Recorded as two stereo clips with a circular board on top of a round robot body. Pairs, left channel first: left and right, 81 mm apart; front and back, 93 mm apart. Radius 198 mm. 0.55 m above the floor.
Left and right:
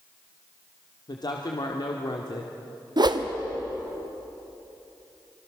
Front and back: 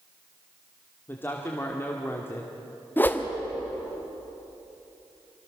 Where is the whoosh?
70° right, 1.6 m.